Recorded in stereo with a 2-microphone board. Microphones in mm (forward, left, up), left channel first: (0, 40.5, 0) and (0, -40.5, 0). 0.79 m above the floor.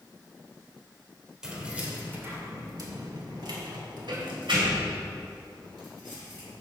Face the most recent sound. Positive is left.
turn(degrees=-75)  # may be behind; listen again after turning